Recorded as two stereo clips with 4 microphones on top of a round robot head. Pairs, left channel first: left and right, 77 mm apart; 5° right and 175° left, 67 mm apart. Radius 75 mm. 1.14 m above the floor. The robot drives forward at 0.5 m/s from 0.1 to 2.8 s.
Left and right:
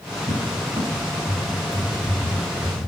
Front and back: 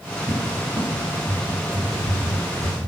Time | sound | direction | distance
0.3 | a cupboard door | 130° right | 3 m